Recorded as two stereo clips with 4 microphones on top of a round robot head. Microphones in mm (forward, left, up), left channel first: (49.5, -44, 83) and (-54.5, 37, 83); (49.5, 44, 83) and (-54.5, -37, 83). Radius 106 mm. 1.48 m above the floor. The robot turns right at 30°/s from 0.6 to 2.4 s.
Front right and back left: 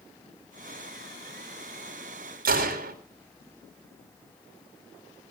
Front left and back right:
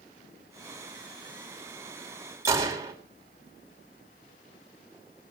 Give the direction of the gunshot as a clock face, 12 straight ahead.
7 o'clock.